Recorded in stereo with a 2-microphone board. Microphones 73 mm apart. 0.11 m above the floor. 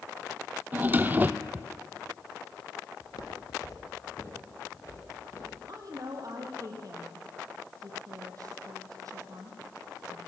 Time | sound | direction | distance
0.7 | a drawer | 25° right (ahead or behind) | 0.8 m
3.0 | footsteps | 65° left (ahead or behind) | 2.5 m
5.7 | a woman speaking | 55° right (ahead or behind) | 3.5 m